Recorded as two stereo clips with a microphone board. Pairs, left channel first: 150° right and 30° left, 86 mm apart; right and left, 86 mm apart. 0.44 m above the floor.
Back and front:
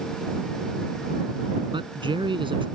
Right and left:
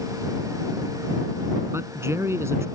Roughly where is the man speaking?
Ahead left.